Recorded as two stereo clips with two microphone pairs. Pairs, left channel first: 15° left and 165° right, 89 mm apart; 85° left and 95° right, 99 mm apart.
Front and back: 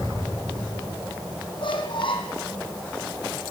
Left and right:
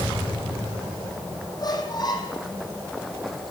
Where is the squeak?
40° left, 4 m.